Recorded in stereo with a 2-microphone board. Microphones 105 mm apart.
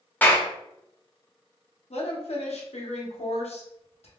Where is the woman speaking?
85° left, 0.8 m.